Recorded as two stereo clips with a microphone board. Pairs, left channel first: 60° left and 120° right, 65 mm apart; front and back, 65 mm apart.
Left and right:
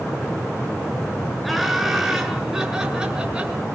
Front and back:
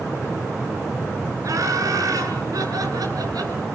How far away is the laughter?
About 9 m.